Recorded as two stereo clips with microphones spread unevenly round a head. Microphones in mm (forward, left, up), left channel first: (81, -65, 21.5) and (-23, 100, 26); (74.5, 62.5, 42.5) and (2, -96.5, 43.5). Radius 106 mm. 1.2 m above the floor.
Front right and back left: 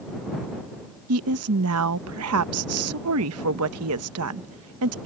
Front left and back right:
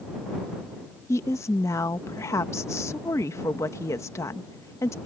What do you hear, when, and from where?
1.1 s a woman speaking: 140° left